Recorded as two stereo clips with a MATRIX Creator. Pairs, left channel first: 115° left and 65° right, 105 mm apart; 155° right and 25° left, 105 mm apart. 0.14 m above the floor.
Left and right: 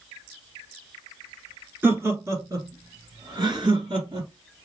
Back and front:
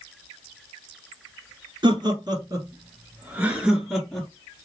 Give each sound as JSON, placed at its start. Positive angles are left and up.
{"t": 1.8, "sound": "laughter", "azimuth_deg": 0, "distance_m": 1.9}